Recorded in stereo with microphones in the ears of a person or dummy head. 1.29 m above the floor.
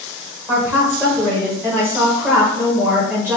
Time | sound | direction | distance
0.5 | a woman speaking | 10° right (ahead or behind) | 0.6 m